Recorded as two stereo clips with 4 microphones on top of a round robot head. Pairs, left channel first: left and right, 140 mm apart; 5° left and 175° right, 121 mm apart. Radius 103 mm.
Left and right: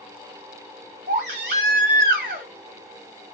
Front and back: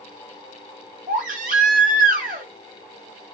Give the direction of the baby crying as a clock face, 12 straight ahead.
5 o'clock.